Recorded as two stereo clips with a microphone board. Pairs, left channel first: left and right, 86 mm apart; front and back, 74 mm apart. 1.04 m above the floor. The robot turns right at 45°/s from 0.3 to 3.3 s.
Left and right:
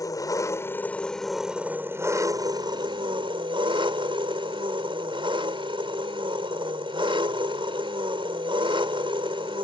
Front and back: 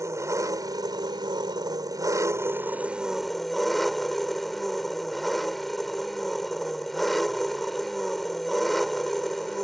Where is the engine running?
135° left; by 9.7 s 90° right.